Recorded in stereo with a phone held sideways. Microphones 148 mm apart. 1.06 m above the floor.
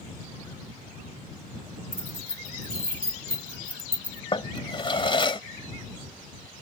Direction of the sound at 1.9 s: 80° right.